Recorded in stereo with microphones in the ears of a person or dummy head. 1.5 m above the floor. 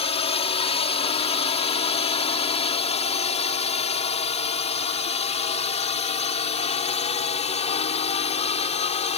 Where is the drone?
35° left (ahead or behind).